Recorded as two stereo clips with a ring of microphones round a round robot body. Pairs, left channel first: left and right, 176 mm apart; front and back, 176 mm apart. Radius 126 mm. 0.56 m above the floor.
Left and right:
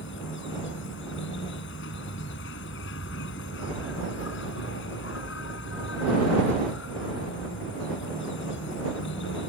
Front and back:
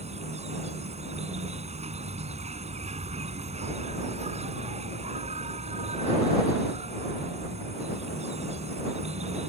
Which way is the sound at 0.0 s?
130° left.